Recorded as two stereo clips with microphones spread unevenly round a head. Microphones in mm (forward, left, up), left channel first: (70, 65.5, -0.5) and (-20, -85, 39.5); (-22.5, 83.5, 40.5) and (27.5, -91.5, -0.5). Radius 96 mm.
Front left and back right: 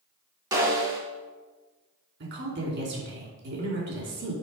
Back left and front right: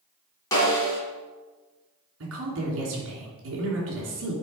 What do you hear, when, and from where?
0.5 s a snare drum: 175° left, 2.5 m
2.2 s a woman speaking: 95° right, 2.5 m